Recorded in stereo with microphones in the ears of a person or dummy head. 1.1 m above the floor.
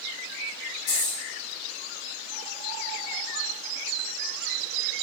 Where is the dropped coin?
55° left (ahead or behind), 1.2 m.